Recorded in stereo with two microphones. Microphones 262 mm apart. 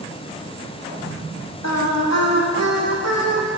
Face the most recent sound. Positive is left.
turn(degrees=75)  # may be behind; listen again after turning